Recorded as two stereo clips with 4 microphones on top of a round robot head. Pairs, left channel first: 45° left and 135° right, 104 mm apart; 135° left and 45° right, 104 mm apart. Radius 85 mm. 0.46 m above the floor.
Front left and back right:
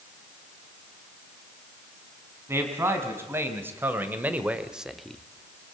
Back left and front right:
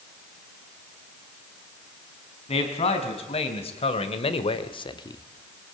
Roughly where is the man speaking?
Behind.